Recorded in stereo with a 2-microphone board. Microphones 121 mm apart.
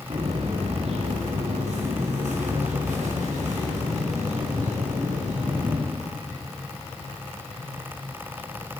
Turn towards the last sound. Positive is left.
turn(degrees=-90)